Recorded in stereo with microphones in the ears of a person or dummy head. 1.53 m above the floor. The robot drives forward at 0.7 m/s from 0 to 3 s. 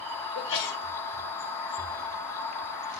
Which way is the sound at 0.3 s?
60° left (ahead or behind).